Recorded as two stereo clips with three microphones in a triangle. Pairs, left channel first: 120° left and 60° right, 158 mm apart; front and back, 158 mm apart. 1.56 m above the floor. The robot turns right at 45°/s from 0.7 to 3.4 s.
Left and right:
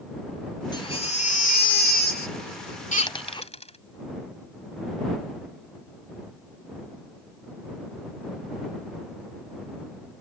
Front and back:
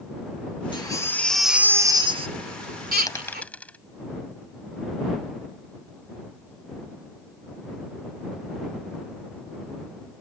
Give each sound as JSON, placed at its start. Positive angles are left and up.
{"t": 0.7, "sound": "a baby crying", "azimuth_deg": 60}
{"t": 3.1, "sound": "a dropped coin", "azimuth_deg": 65}